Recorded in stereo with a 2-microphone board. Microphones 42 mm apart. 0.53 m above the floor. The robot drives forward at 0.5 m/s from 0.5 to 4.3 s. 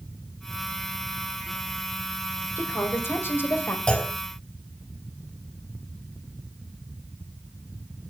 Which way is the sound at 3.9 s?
25° left (ahead or behind).